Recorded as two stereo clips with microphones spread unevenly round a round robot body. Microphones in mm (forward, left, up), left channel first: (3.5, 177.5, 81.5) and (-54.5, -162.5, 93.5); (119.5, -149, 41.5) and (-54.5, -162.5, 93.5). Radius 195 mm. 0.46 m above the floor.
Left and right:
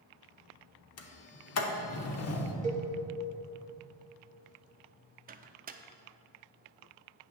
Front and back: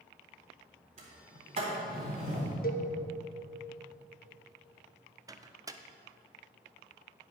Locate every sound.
1.0 s a sliding door: 120° left, 0.8 m
2.6 s a cowbell: 30° right, 1.0 m
5.3 s a microwave: 85° right, 0.5 m